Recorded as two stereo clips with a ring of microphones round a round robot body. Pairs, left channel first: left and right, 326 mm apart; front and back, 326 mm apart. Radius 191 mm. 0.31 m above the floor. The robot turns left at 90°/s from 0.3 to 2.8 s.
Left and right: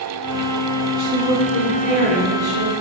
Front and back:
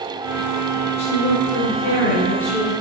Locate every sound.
1.0 s a woman speaking: 65° left, 3.5 m; by 2.8 s 100° right, 3.5 m